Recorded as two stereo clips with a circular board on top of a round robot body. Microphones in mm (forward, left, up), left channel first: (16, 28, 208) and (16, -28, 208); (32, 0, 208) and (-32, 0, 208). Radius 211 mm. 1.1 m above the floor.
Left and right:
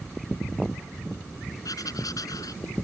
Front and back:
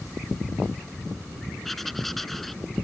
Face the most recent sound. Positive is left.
turn(degrees=85)